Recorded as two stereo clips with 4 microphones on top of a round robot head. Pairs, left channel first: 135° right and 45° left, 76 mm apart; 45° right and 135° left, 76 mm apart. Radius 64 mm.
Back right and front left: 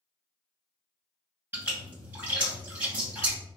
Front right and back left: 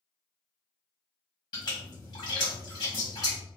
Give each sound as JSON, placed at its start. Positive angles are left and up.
{"t": 1.5, "sound": "a splash", "azimuth_deg": -15, "distance_m": 1.8}